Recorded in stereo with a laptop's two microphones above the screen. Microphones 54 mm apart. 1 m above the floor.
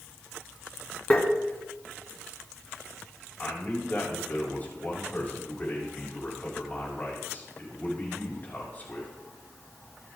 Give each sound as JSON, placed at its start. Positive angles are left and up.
{"t": 1.1, "sound": "tapping", "side_deg": 30, "distance_m": 1.6}
{"t": 3.4, "sound": "a man speaking", "side_deg": 35, "distance_m": 5.5}